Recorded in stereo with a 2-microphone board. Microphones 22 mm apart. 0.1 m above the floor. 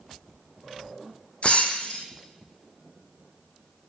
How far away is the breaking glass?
About 0.8 m.